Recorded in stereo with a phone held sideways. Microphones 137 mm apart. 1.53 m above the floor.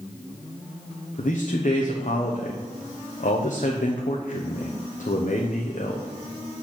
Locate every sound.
1.2 s a man speaking: 80° left, 0.9 m